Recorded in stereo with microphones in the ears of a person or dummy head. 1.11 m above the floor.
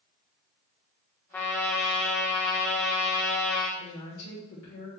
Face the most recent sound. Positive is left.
turn(degrees=70)  # may be behind; listen again after turning